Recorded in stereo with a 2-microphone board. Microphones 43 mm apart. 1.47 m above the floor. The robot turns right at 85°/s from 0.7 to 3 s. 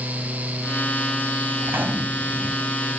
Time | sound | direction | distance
1.6 | a gunshot | 70° right | ?